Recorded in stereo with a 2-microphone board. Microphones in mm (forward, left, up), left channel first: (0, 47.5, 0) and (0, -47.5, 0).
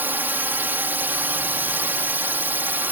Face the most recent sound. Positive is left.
turn(degrees=-20)  # may be behind; listen again after turning